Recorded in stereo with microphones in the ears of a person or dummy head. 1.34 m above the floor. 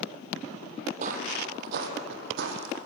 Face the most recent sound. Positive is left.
turn(degrees=-70)  # may be behind; listen again after turning